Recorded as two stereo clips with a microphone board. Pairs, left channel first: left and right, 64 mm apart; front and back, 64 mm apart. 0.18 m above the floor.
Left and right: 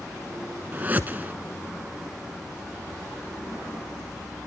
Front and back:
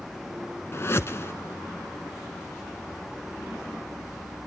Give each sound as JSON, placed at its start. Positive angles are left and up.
{"t": 0.7, "sound": "a whoosh", "azimuth_deg": -35, "distance_m": 1.0}